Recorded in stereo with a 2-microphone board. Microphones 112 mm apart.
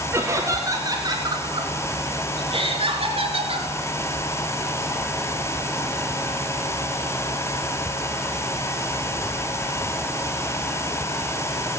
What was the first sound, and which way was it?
Laughter, 20° right (ahead or behind).